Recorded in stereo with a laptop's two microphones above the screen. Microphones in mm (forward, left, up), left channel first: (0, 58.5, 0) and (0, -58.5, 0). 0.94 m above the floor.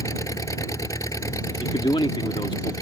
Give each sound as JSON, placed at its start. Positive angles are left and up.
{"t": 0.0, "sound": "an engine running", "side_deg": 25}
{"t": 1.6, "sound": "a man speaking", "side_deg": 45}